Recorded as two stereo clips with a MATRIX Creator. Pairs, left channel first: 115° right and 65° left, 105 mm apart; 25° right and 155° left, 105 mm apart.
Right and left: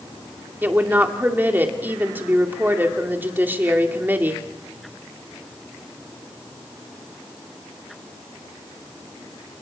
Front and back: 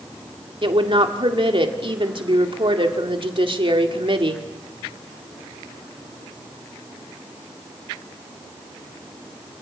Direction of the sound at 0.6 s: 135° left.